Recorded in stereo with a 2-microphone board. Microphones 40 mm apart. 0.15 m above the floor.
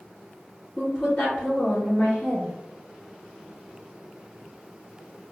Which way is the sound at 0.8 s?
45° left (ahead or behind).